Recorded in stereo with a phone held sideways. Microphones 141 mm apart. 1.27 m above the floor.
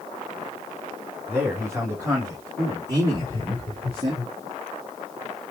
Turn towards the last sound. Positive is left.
turn(degrees=-40)  # may be behind; listen again after turning